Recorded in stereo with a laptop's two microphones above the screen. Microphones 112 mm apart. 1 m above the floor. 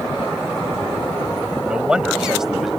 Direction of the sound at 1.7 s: 10° right (ahead or behind).